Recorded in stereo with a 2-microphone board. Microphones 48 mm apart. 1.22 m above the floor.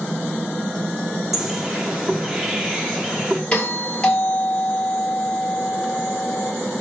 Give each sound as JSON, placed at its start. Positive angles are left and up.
{"t": 1.3, "sound": "a bird", "side_deg": -5, "distance_m": 3.0}
{"t": 3.5, "sound": "a doorbell", "side_deg": 25, "distance_m": 4.0}